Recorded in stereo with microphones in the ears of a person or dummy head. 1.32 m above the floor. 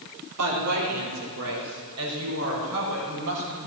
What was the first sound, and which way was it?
A woman speaking, 80° right.